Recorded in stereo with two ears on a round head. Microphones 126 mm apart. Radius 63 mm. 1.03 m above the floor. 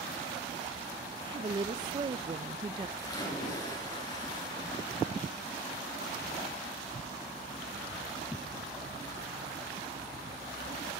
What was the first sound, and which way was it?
A woman speaking, 35° right (ahead or behind).